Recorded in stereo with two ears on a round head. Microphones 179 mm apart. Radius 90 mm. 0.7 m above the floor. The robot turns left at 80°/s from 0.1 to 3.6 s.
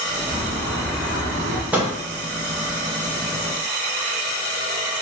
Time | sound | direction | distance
0.3 | a bird | 50° left | 0.7 m
1.7 | a microwave | 5° right (ahead or behind) | 0.7 m